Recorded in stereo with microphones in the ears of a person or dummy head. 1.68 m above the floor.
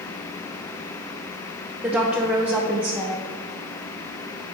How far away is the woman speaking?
About 0.9 m.